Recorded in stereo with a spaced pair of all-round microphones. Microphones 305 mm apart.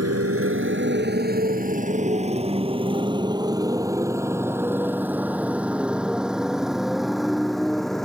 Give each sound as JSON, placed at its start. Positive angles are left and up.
{"t": 0.0, "sound": "a motorcycle", "side_deg": -50}